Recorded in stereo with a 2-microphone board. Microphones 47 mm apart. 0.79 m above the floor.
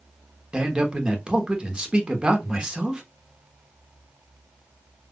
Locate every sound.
0.5 s a man speaking: 20° right (ahead or behind), 1.0 m